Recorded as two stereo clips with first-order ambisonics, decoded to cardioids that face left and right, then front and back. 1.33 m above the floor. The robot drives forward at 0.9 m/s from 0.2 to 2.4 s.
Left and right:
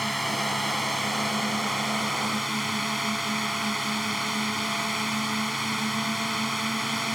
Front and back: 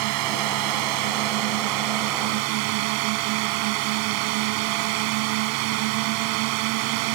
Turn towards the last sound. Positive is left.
turn(degrees=180)